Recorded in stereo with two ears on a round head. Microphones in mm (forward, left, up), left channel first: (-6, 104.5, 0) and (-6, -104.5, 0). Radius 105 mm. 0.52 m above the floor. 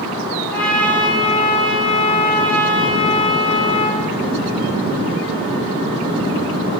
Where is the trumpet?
5° left (ahead or behind), 3.5 m.